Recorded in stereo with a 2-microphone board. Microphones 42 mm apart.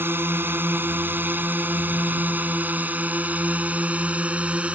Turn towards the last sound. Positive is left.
turn(degrees=-30)  # may be behind; listen again after turning